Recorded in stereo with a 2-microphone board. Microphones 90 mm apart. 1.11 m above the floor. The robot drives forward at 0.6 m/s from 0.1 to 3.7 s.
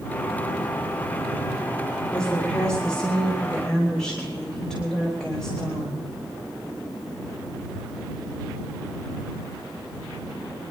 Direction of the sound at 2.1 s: 10° left (ahead or behind).